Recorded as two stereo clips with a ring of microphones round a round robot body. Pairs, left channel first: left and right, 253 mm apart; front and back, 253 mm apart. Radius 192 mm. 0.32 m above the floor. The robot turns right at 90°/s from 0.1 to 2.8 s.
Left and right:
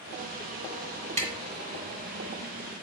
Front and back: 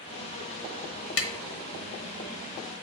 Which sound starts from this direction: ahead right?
Tapping, at 1.2 s.